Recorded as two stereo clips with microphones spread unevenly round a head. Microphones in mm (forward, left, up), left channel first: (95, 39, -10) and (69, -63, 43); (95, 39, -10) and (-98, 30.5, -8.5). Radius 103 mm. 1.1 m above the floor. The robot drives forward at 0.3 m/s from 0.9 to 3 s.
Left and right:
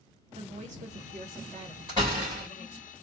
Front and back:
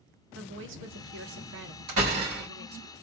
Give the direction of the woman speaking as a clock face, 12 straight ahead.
5 o'clock.